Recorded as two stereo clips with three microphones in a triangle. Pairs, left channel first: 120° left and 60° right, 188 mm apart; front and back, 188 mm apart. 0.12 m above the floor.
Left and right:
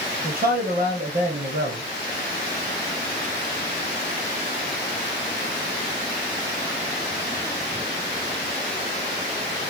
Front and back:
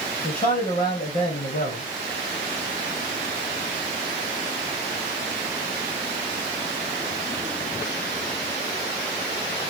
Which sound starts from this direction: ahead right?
A man speaking, at 0.2 s.